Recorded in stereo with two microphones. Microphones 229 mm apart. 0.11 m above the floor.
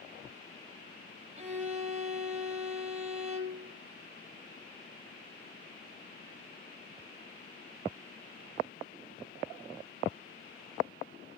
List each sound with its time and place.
1.4 s a violin: 30° right (ahead or behind), 3.5 m